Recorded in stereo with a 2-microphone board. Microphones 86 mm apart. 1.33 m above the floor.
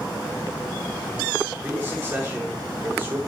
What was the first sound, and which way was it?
A man speaking, 20° right (ahead or behind).